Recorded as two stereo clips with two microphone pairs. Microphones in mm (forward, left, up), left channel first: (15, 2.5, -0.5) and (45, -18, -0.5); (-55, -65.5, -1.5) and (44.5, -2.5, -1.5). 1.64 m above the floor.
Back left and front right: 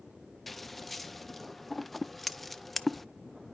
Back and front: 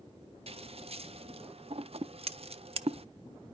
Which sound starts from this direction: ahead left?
Scissors, at 0.5 s.